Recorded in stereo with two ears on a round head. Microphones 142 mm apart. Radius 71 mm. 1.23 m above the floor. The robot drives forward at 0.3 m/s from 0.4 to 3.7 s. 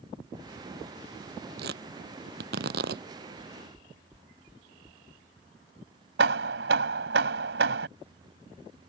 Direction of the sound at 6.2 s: 80° right.